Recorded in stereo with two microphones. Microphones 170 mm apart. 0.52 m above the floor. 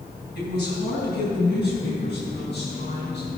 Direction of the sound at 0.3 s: 75° left (ahead or behind).